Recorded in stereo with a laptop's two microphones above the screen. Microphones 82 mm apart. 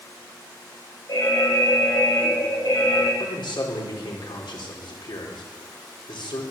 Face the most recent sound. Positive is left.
turn(degrees=75)  # may be behind; listen again after turning